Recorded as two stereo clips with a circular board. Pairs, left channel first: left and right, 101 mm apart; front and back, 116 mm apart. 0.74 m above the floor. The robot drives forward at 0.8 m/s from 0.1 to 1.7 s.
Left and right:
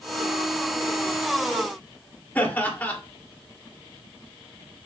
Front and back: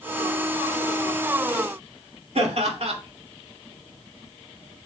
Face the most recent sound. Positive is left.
turn(degrees=160)